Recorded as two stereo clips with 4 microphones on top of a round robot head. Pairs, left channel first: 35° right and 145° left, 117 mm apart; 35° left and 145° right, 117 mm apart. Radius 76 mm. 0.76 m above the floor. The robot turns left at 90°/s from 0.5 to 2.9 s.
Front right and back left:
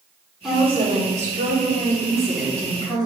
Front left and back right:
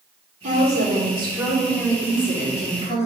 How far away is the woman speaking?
About 2.5 m.